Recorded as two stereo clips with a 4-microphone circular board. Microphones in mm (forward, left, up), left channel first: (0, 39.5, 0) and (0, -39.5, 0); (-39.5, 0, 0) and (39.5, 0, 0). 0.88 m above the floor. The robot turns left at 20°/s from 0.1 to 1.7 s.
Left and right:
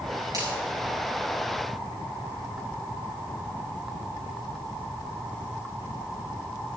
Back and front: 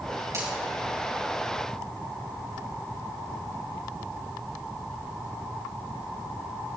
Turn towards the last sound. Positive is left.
turn(degrees=-75)